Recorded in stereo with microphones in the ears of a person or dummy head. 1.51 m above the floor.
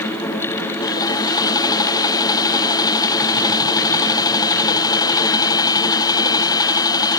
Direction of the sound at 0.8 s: 15° left (ahead or behind).